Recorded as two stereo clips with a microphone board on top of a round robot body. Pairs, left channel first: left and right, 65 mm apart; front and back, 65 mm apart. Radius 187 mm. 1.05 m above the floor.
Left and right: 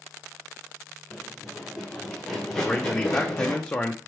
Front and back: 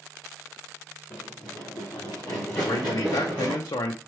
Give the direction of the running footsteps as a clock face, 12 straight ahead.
12 o'clock.